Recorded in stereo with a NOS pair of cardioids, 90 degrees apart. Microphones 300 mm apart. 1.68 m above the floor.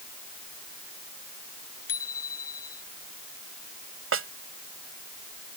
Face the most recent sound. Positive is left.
turn(degrees=-45)